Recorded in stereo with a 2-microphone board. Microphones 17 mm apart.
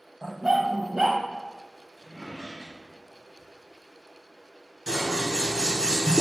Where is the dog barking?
40° right (ahead or behind), 0.5 m.